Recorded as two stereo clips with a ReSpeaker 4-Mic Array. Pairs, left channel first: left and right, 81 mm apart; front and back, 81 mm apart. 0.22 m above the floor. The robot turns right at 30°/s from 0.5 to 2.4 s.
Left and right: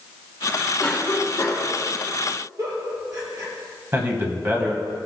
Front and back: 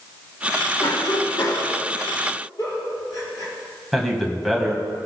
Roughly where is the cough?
Ahead.